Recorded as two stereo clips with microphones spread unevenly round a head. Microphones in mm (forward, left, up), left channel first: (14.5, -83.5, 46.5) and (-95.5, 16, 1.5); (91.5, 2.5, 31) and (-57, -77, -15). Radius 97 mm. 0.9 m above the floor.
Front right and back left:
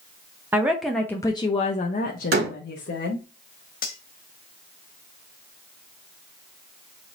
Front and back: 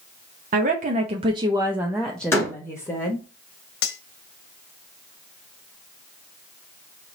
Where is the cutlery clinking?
5° left, 0.8 m.